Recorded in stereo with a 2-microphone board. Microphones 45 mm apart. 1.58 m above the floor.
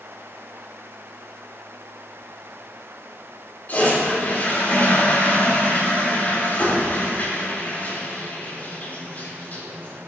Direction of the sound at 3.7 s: 35° left (ahead or behind).